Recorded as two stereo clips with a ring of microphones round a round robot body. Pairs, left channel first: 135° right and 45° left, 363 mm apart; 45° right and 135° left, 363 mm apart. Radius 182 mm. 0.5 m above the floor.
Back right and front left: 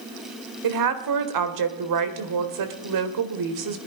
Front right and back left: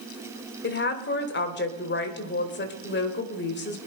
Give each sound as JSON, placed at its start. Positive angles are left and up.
{"t": 0.6, "sound": "a woman speaking", "azimuth_deg": 15, "distance_m": 1.7}